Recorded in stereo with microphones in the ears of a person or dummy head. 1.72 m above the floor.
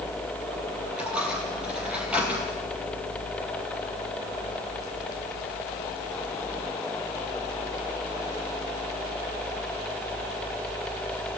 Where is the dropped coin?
5° right (ahead or behind), 4.5 m.